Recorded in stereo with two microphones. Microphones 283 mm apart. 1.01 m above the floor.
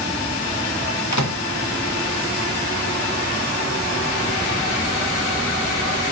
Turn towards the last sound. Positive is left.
turn(degrees=75)  # may be behind; listen again after turning